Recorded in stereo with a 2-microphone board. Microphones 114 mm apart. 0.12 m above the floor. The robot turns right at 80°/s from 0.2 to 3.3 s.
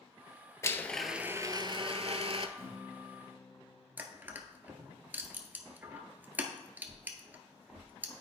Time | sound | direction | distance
0.6 | a blender | 150° left | 0.6 m
2.6 | a guitar | 30° right | 3 m
4.0 | crushing | 15° right (ahead or behind) | 1.0 m